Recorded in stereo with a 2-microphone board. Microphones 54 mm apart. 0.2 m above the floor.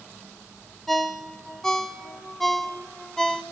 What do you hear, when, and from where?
0.9 s a ringtone: 10° left (ahead or behind), 0.6 m